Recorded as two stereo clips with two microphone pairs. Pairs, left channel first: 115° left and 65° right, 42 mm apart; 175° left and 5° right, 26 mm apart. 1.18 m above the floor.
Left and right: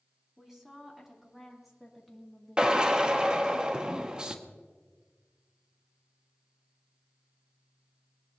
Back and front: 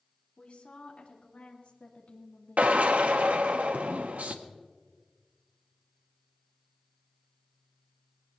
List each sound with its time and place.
0.4 s a woman speaking: 145° right, 3.5 m; by 3.6 s 170° right, 1.5 m
2.6 s a drill: straight ahead, 1.0 m